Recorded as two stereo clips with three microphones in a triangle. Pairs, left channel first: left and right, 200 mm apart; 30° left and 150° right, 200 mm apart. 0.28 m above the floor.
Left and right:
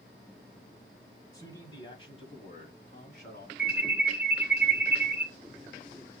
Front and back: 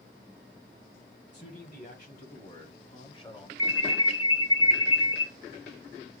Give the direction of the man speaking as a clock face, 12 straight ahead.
11 o'clock.